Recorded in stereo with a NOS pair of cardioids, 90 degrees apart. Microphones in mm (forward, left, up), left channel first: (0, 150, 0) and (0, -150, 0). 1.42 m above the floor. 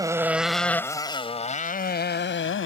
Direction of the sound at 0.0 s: 10° right.